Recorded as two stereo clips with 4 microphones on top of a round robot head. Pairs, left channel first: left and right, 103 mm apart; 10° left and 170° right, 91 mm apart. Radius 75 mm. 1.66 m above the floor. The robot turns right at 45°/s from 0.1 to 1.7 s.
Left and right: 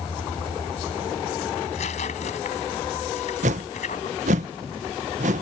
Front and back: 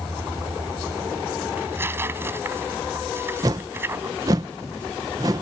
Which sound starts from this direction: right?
A whoosh, at 3.4 s.